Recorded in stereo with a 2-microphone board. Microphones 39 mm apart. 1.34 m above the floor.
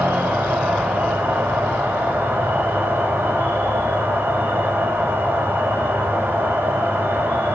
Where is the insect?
80° right, 8 m.